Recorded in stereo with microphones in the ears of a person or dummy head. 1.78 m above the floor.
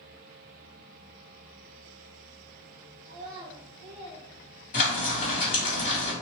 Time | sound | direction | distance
3.0 | a child speaking | 30° right (ahead or behind) | 0.9 m
4.7 | frying | 45° left (ahead or behind) | 1.8 m